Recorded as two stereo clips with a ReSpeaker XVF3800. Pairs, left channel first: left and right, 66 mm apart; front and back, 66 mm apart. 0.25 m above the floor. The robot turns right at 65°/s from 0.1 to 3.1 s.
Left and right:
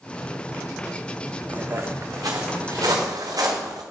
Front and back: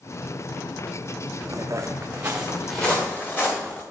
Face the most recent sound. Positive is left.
turn(degrees=-65)